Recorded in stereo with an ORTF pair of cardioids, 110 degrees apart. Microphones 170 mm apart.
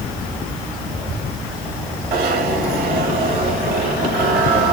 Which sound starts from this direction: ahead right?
A zipper, at 2.1 s.